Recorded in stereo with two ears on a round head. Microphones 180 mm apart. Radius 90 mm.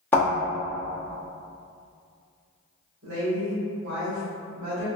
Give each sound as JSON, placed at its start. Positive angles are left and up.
{"t": 0.1, "sound": "a thud", "side_deg": 10, "distance_m": 1.3}
{"t": 3.0, "sound": "a woman speaking", "side_deg": -70, "distance_m": 1.2}